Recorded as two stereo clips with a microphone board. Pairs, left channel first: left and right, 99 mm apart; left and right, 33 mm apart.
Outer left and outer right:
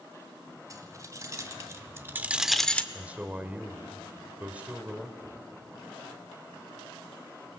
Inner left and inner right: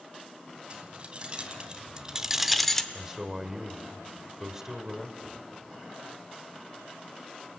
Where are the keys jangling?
35° right (ahead or behind), 2.5 m; by 2.8 s 15° left (ahead or behind), 0.9 m.